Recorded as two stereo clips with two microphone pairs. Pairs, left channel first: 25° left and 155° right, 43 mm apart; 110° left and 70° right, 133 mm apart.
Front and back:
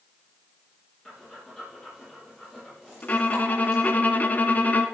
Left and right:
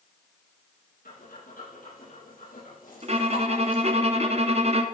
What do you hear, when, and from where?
1.1 s breathing: 100° left, 8.5 m
3.0 s a violin: 30° right, 1.4 m